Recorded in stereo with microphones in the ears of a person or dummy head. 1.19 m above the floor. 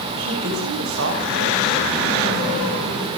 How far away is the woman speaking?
About 6 m.